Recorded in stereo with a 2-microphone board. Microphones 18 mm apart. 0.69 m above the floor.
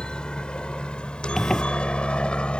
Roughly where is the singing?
No singing in this recording.